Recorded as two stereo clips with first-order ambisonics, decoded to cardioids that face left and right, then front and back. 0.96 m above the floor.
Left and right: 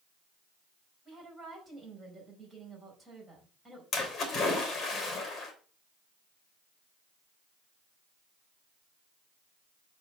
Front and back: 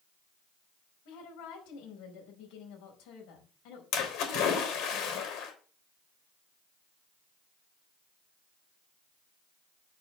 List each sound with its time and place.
1.1 s a woman speaking: 5° right, 5 m
3.9 s a splash: 30° left, 3.5 m